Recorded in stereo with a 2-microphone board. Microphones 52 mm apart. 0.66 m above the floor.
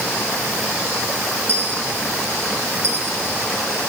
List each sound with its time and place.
1.5 s a dropped coin: 60° right (ahead or behind), 2.5 m